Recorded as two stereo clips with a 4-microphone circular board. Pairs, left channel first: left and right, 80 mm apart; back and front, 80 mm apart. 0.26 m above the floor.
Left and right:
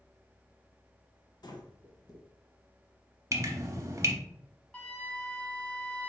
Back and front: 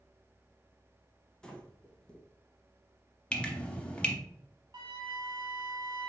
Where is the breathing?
100° left, 0.7 m.